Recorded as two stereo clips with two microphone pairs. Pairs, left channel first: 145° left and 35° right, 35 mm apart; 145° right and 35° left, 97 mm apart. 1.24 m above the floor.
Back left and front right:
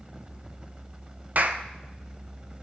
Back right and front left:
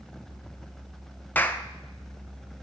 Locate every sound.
1.4 s a clap: 70° right, 0.6 m